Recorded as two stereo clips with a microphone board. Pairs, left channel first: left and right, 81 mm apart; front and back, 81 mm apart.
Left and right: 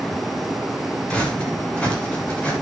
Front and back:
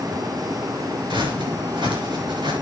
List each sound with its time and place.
1.1 s footsteps: 165° left, 7 m